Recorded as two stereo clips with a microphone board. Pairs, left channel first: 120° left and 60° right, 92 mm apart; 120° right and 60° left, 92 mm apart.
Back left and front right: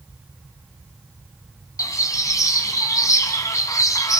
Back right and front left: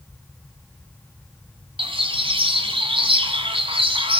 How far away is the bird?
About 2.5 m.